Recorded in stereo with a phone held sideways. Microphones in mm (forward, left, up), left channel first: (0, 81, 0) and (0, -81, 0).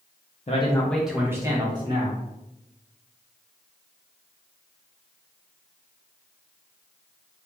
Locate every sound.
0.5 s a man speaking: 45° left (ahead or behind), 0.5 m; by 2.2 s 35° right (ahead or behind), 1.4 m